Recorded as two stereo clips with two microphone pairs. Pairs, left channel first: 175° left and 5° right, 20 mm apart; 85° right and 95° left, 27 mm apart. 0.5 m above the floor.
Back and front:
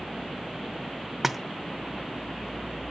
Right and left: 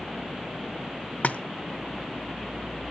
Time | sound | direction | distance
1.2 | a splash | 85° right | 0.8 m